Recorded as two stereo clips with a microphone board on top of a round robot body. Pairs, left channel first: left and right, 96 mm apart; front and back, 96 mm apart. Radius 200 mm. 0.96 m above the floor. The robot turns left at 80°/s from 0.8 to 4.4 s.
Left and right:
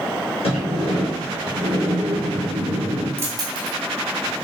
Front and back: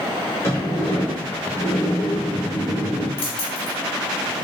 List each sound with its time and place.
0.4 s a sliding door: 70° left, 1.1 m; by 3.1 s 115° right, 1.1 m
3.2 s keys jangling: 25° right, 0.6 m; by 3.8 s 70° right, 0.6 m